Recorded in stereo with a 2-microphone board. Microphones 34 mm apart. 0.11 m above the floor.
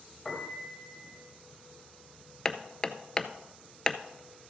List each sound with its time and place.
0.2 s a piano: 15° left (ahead or behind), 2 m
2.5 s hammering: 20° left (ahead or behind), 0.6 m